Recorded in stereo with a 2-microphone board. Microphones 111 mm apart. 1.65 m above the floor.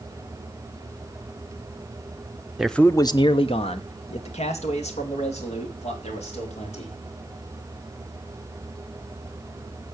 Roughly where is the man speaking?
Centre.